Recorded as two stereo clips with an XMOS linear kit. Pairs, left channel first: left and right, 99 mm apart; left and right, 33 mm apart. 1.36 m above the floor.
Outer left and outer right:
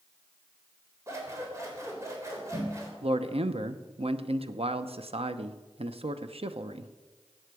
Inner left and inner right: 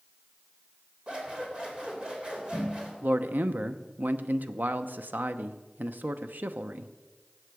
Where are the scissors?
30° right (ahead or behind), 3 m.